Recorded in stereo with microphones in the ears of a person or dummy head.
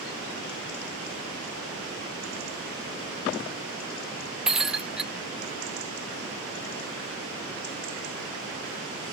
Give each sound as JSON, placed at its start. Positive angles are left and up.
{"t": 4.5, "sound": "breaking glass", "side_deg": 0}